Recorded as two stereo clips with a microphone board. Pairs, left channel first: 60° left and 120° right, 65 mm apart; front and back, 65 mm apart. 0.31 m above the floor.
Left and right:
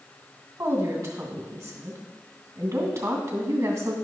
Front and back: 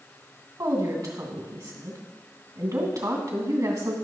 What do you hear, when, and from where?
0.6 s a woman speaking: 165° right, 2.5 m